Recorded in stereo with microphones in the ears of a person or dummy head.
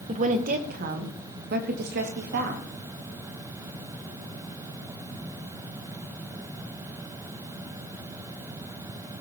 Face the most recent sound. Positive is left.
turn(degrees=-60)  # may be behind; listen again after turning